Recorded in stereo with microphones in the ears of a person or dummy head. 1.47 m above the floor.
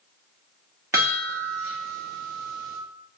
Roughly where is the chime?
Centre.